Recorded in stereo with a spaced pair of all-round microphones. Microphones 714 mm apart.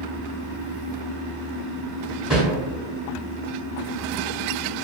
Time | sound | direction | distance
2.3 | a whoosh | centre (ahead or behind) | 1.2 m